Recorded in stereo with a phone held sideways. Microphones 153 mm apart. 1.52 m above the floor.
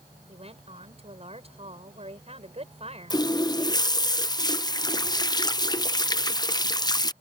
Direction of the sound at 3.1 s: 25° left (ahead or behind).